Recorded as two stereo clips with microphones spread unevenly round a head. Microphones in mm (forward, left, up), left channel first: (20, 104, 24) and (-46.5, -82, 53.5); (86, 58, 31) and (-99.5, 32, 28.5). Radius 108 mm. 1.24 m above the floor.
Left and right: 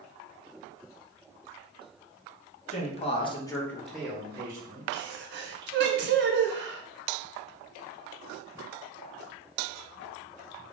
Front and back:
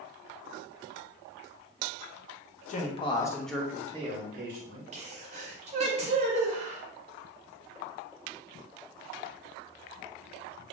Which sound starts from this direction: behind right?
A sneeze, at 4.9 s.